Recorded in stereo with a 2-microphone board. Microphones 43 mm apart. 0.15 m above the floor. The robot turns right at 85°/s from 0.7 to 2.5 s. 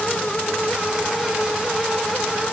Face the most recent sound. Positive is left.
No sound to turn to.